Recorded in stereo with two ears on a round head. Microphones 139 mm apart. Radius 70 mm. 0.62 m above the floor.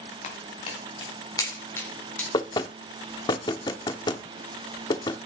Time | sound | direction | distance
0.2 | footsteps | 45° left (ahead or behind) | 4 m
2.3 | knocking | 30° left (ahead or behind) | 0.7 m